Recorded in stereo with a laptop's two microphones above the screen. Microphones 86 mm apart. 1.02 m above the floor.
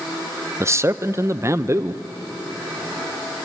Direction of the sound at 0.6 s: 30° right (ahead or behind).